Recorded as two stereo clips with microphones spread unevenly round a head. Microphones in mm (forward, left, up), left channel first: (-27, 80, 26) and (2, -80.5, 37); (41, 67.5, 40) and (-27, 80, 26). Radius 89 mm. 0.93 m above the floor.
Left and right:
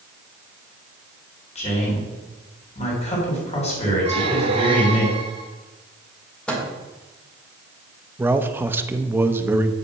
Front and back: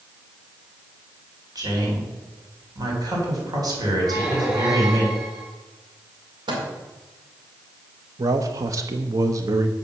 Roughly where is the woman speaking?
Behind left.